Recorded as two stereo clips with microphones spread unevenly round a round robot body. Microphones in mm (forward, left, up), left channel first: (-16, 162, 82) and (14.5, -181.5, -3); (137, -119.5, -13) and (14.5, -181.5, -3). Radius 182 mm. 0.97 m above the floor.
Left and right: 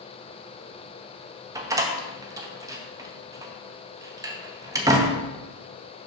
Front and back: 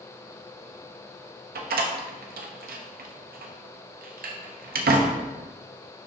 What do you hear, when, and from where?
1.6 s a door slam: 165° right, 0.6 m